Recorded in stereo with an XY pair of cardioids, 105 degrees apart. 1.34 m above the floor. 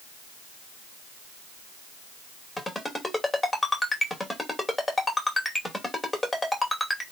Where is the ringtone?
15° left, 2.5 m.